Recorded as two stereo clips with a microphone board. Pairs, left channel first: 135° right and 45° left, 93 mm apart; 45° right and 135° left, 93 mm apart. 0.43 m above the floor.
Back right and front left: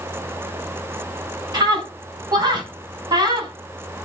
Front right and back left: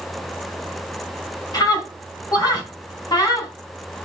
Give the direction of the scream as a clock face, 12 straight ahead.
12 o'clock.